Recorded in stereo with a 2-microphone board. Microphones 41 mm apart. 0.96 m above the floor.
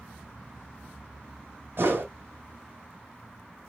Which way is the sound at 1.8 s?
60° right (ahead or behind).